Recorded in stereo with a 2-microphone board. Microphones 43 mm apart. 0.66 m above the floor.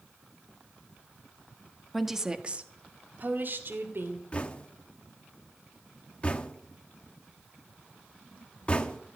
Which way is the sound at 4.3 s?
25° left (ahead or behind).